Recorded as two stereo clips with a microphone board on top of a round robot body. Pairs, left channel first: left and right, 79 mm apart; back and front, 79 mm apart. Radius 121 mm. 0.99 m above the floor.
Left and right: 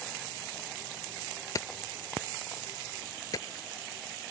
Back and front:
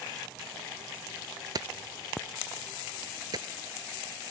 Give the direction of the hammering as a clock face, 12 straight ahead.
11 o'clock.